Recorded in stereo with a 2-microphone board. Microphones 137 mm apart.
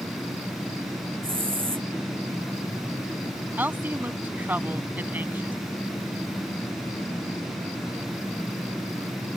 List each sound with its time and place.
1.2 s a hiss: 40° right (ahead or behind)
3.6 s a woman speaking: 15° right (ahead or behind)